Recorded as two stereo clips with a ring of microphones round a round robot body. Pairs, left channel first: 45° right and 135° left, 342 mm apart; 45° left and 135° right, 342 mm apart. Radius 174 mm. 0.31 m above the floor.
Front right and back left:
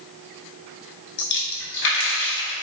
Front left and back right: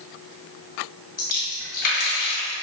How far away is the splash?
About 1.0 m.